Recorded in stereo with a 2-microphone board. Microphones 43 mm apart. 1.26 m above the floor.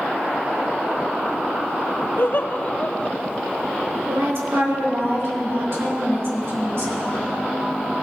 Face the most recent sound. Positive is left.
turn(degrees=-65)  # may be behind; listen again after turning